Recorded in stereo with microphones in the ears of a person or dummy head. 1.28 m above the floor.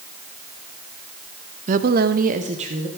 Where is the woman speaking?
35° right (ahead or behind), 0.6 m.